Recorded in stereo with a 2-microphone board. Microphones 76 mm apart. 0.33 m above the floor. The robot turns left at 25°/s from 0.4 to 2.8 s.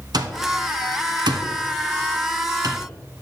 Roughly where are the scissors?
No scissors in this recording.